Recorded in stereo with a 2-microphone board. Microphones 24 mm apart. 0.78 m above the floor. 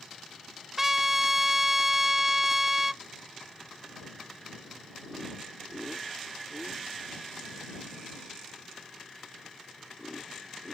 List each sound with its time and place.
0.8 s a trumpet: 15° right (ahead or behind)